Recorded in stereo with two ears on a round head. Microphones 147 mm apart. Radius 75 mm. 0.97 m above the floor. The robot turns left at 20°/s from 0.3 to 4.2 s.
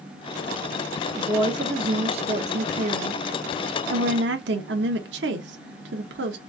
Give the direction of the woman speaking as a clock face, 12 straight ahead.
1 o'clock.